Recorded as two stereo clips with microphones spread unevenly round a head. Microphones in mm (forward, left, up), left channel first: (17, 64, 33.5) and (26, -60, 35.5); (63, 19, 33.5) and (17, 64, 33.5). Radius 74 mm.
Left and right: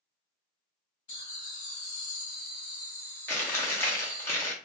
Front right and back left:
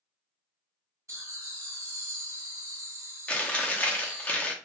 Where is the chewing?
25° left, 0.8 m.